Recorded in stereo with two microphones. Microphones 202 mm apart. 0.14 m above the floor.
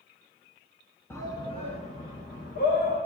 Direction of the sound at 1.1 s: 10° left (ahead or behind).